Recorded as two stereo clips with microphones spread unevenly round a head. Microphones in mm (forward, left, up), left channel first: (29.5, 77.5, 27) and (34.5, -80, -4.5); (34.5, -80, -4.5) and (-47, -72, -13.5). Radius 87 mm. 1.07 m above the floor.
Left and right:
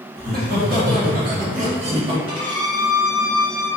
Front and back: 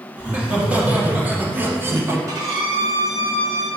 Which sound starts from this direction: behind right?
A violin, at 2.3 s.